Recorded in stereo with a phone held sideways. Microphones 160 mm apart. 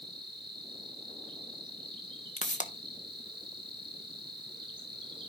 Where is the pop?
50° left (ahead or behind), 1.1 m.